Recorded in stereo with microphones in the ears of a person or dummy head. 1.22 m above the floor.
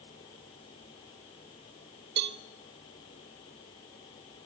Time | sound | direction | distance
2.2 | a cowbell | 60° right (ahead or behind) | 0.6 m